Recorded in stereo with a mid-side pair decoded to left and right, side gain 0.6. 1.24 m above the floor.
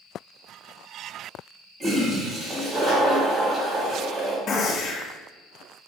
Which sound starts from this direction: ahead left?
A gunshot, at 4.5 s.